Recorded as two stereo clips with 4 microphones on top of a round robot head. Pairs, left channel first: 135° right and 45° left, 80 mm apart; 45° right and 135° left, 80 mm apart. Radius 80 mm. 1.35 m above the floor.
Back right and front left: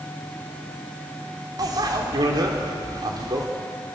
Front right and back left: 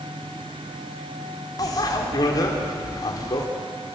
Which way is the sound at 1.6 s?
Straight ahead.